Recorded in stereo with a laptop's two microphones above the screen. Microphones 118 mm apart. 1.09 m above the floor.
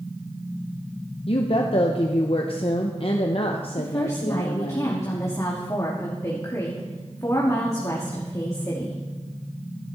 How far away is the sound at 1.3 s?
About 0.8 m.